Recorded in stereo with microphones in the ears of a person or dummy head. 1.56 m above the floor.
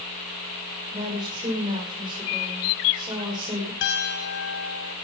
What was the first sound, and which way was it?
A woman speaking, 25° right (ahead or behind).